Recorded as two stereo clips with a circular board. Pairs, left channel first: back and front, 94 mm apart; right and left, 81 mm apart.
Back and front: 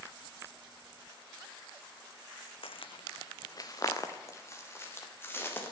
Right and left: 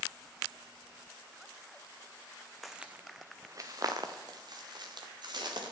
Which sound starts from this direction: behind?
Footsteps, at 2.6 s.